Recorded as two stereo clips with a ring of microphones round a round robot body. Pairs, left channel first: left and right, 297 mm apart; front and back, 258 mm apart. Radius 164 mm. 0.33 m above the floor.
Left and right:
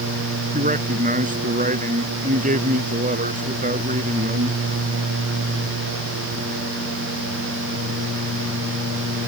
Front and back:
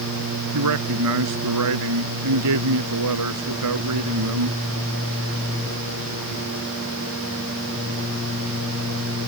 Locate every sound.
0.5 s a man speaking: 155° right